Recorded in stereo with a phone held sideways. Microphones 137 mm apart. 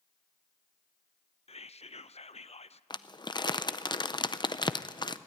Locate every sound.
1.5 s whispering: 50° left (ahead or behind), 0.6 m
2.9 s crumpling: 35° left (ahead or behind), 0.5 m